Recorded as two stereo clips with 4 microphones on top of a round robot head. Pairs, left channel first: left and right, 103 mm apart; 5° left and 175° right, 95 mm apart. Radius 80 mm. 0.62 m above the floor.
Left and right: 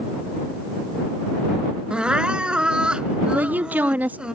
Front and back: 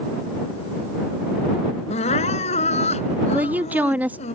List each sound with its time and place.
1.9 s crying: 10° right
3.3 s a woman speaking: 135° right